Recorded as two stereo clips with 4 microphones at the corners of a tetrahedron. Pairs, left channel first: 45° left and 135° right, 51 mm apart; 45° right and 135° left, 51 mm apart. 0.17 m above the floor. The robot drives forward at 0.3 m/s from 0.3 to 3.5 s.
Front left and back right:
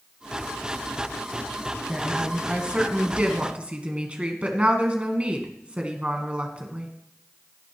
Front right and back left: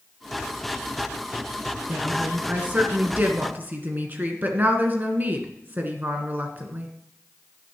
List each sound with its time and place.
1.9 s a woman speaking: 160° left, 1.5 m; by 6.9 s 170° left, 1.8 m